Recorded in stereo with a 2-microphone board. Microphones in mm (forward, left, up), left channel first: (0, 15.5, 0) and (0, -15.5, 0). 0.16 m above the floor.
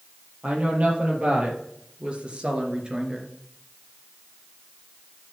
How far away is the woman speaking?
About 4.5 m.